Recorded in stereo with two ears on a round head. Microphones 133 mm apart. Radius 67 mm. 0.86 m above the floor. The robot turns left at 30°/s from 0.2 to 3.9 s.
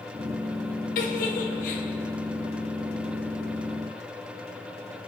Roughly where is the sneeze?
I don't hear a sneeze.